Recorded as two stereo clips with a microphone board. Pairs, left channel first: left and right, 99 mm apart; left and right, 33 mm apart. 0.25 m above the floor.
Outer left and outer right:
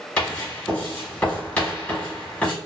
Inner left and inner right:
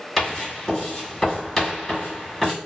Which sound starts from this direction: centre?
Writing, at 0.2 s.